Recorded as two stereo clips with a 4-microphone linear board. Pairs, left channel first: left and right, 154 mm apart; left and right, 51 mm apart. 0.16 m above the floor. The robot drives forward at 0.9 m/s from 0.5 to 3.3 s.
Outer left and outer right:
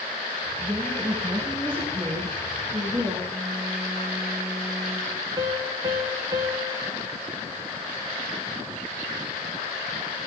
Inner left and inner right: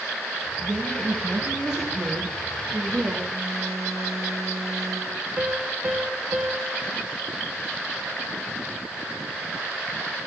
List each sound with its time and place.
0.6 s a woman speaking: 15° right (ahead or behind), 3 m; by 3.2 s 10° right (ahead or behind), 5.5 m
3.3 s a phone buzzing: 10° left (ahead or behind), 6.5 m
5.4 s a piano: 25° right (ahead or behind), 1.3 m